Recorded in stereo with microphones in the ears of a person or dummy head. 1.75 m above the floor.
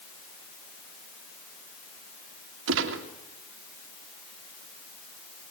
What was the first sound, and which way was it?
A gunshot, 75° right (ahead or behind).